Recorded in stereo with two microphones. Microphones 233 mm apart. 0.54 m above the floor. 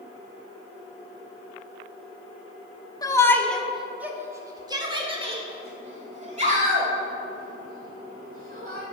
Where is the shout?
15° left (ahead or behind), 0.9 m; by 8.8 s 40° right (ahead or behind), 3 m.